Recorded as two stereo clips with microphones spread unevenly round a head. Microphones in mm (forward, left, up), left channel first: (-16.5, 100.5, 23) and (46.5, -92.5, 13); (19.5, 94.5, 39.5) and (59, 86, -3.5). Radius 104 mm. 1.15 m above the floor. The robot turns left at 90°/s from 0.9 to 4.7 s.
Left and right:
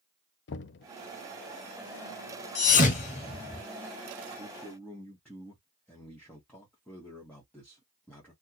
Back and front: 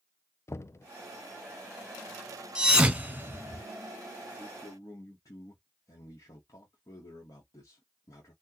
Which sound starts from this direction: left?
Knocking, at 0.5 s.